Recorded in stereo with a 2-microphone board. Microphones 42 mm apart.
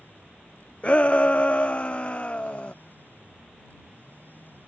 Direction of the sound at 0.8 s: 30° left (ahead or behind).